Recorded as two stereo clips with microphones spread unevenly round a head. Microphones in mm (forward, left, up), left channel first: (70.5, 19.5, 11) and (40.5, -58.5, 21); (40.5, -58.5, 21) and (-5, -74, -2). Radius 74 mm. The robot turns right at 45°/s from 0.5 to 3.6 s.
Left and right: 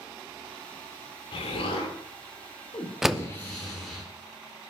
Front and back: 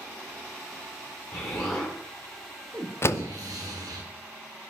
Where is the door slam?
25° right, 0.6 m; by 3.3 s 15° right, 0.6 m.